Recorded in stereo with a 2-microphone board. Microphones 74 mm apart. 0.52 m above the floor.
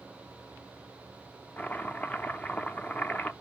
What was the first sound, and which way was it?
Chopping, 25° left (ahead or behind).